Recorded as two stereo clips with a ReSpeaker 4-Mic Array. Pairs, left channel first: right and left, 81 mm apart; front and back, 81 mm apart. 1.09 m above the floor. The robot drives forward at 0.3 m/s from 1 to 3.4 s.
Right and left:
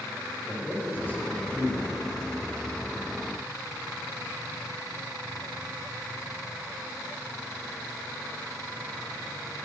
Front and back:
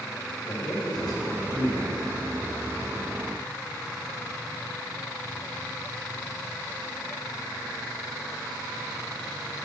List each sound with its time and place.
0.5 s a man speaking: 25° right, 4 m; by 2.0 s 30° right, 4 m